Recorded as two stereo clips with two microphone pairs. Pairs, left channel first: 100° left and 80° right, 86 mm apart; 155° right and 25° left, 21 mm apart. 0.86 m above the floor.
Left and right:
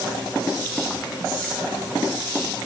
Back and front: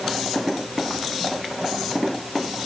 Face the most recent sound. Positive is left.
No sound to turn to.